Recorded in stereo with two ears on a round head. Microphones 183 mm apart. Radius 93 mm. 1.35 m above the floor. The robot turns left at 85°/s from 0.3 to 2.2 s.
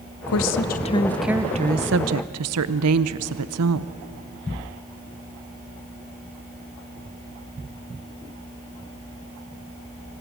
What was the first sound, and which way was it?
A woman speaking, 75° left.